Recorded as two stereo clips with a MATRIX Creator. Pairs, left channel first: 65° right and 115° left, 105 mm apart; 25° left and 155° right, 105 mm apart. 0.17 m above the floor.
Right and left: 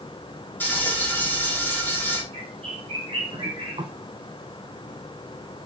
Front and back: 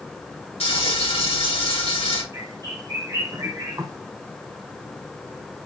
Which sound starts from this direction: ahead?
Frying, at 0.6 s.